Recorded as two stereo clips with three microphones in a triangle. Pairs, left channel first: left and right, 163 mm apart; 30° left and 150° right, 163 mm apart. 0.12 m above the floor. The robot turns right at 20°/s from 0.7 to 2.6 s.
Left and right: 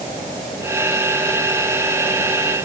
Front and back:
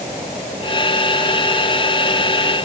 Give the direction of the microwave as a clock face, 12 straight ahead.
No microwave in this recording.